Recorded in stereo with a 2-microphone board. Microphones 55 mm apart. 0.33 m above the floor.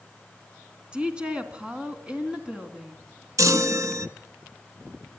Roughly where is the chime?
Right.